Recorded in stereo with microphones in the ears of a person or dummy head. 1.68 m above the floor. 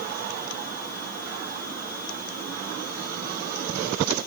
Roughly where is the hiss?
No hiss in this recording.